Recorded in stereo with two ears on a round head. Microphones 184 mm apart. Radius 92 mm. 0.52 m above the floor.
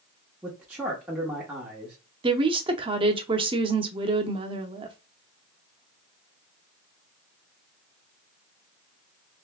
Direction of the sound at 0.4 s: 5° right (ahead or behind).